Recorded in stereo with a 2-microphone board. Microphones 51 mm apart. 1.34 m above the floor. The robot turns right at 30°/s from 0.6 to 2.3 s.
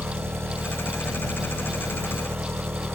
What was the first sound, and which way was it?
An engine running, 120° right.